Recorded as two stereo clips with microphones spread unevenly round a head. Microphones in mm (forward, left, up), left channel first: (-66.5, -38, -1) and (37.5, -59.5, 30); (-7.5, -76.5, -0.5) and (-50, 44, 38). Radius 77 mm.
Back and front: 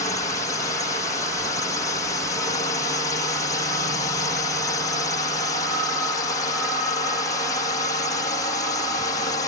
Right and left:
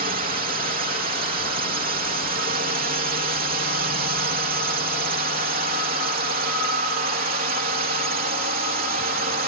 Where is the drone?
120° left.